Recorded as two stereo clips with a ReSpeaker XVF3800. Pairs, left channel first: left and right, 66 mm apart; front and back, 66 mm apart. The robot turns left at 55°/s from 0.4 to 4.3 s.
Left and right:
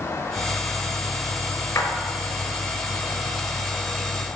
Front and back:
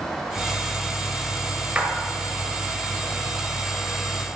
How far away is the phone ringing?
No phone ringing in this recording.